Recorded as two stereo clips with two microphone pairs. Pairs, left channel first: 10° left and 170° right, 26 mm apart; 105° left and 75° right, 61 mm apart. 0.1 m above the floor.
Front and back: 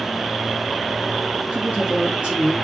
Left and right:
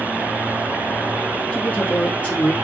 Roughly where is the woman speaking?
Behind.